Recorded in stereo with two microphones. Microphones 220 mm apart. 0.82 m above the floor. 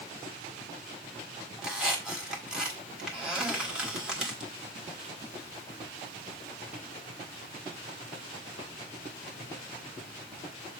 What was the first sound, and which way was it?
A squeak, 5° right (ahead or behind).